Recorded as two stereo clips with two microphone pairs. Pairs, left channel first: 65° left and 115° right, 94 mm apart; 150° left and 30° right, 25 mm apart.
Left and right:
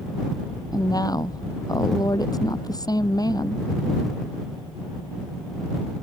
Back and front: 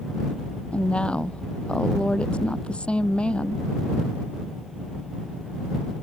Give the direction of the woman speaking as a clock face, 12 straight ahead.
8 o'clock.